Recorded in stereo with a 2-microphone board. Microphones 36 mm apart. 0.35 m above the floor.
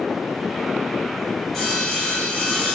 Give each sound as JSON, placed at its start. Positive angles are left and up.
{"t": 1.5, "sound": "sawing", "side_deg": 10, "distance_m": 1.3}